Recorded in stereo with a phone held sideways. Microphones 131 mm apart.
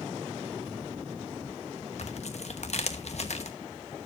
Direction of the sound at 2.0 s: 55° left (ahead or behind).